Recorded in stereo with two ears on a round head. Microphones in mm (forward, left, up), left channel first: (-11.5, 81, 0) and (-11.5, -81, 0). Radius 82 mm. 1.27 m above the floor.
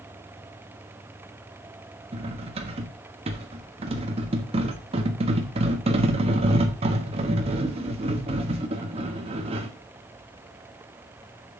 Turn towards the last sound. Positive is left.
turn(degrees=-30)  # may be behind; listen again after turning